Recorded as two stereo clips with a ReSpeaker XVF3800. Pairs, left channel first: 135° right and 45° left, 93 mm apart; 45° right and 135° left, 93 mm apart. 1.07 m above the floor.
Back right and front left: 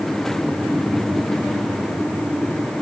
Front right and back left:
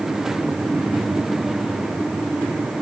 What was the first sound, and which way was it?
Only background noise.